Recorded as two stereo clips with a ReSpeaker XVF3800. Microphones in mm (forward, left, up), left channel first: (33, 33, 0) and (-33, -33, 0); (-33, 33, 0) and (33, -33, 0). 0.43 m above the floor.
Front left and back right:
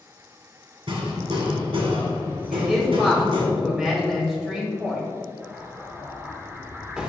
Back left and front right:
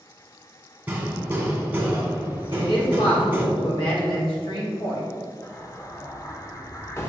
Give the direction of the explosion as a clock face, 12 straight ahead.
7 o'clock.